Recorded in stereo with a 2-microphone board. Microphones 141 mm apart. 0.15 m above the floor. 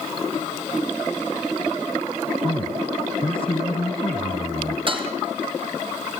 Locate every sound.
2.4 s a man speaking: 40° left (ahead or behind), 2.5 m
4.9 s dishes clattering: 40° right (ahead or behind), 3.5 m